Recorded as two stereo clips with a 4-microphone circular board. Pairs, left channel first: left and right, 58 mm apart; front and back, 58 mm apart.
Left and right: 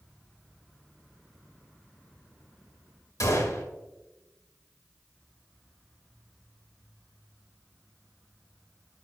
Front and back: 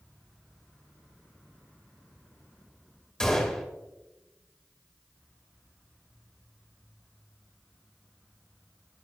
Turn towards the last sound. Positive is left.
turn(degrees=75)